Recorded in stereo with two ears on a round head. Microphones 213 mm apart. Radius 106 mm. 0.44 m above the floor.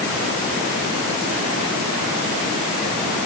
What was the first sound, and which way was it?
Only background noise.